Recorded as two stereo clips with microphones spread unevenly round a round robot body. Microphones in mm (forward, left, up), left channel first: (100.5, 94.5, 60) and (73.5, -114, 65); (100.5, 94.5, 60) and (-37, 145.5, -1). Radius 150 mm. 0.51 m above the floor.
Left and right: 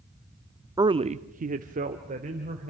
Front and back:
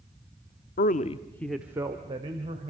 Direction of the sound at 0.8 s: 30° right.